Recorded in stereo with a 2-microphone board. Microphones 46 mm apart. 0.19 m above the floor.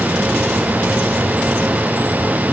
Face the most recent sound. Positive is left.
No sound to turn to.